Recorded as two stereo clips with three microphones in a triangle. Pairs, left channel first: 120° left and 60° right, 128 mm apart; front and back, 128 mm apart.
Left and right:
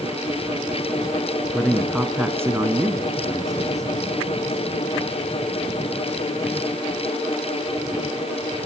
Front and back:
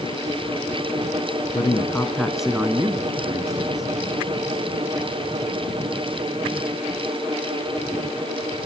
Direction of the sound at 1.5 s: 35° left.